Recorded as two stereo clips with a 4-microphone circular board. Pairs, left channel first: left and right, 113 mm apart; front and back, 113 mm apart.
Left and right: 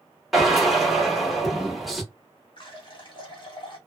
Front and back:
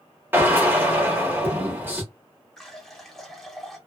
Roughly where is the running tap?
Left.